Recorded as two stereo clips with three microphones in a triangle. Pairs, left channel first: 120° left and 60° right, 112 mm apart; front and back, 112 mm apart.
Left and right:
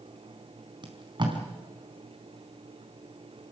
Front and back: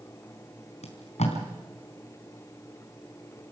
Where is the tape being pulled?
15° right, 4 m.